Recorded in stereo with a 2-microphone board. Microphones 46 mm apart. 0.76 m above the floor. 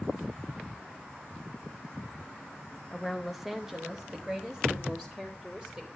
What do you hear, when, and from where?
2.9 s a woman speaking: 5° left (ahead or behind), 0.9 m; by 5.9 s 15° right (ahead or behind), 2.5 m